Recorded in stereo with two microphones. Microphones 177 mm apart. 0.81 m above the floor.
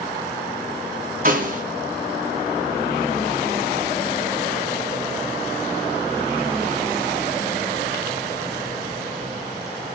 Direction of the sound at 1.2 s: 50° right (ahead or behind).